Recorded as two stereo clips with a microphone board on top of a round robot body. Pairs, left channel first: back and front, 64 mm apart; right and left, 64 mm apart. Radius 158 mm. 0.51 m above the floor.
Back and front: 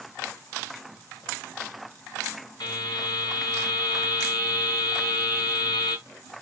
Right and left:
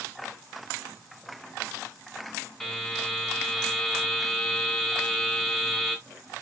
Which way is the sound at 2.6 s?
175° right.